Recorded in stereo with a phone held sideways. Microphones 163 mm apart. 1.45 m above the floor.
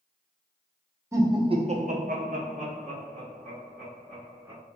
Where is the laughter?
15° right (ahead or behind), 0.8 m; by 4.6 s 30° right (ahead or behind), 2 m.